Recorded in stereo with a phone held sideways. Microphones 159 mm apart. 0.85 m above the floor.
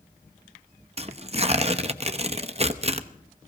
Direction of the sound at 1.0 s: 40° right (ahead or behind).